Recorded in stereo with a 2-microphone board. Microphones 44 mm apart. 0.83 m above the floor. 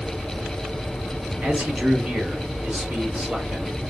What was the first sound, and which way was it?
A man speaking, 30° right (ahead or behind).